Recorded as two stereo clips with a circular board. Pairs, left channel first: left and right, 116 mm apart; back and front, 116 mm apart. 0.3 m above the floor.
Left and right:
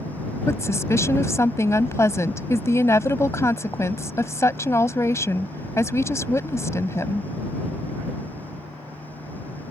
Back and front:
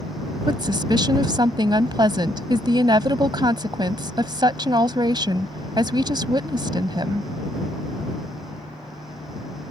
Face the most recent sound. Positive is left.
turn(degrees=35)